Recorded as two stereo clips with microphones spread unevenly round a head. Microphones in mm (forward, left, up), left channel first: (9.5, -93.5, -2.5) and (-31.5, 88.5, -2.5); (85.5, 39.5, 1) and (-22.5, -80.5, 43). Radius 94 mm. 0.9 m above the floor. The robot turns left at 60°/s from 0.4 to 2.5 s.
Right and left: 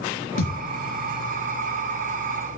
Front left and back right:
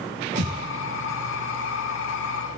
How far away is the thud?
About 3.5 m.